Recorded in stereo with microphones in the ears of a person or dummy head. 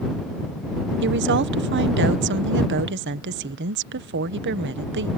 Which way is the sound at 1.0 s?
55° right (ahead or behind).